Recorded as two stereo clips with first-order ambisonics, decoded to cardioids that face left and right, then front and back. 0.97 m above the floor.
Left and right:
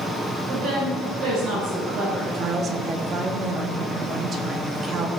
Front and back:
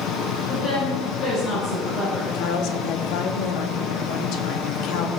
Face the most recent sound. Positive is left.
turn(degrees=-25)